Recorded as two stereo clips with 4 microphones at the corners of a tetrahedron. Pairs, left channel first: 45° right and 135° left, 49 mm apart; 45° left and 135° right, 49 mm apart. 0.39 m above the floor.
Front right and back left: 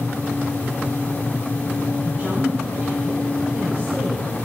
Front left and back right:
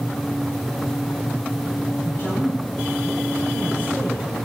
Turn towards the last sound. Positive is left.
turn(degrees=80)